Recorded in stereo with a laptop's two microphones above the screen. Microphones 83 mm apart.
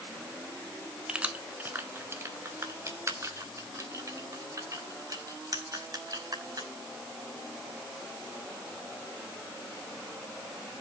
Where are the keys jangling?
10° right (ahead or behind), 1.3 m; by 6.7 s 50° right (ahead or behind), 5.5 m.